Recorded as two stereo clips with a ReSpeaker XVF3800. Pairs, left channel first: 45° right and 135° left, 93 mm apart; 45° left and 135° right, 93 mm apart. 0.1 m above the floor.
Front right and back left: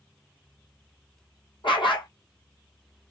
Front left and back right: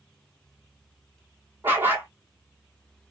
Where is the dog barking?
70° right, 1.1 m.